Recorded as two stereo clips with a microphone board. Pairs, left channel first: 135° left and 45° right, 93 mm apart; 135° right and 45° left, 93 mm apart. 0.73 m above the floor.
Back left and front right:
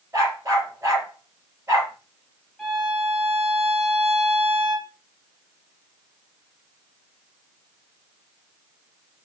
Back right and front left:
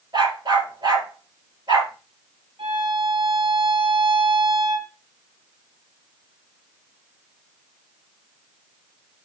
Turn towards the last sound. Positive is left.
turn(degrees=45)